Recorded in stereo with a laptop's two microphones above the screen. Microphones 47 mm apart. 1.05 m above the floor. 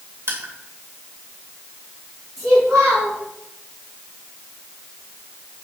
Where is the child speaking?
85° right, 4 m.